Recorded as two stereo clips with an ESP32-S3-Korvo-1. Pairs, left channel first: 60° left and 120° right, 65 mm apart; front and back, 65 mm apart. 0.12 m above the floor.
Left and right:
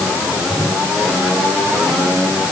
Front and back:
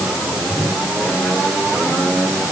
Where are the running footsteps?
No running footsteps in this recording.